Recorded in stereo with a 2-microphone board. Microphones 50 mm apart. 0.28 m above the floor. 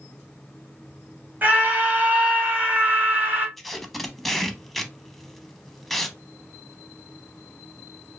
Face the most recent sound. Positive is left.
turn(degrees=5)  # may be behind; listen again after turning